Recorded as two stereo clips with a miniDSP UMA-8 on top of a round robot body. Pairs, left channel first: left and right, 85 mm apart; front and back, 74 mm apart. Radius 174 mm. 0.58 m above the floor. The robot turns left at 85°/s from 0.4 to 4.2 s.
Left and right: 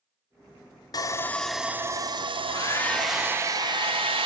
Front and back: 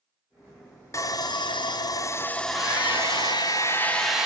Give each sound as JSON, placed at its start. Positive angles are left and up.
{"t": 0.9, "sound": "sawing", "azimuth_deg": 50, "distance_m": 0.8}
{"t": 2.4, "sound": "a hair dryer", "azimuth_deg": 60, "distance_m": 0.9}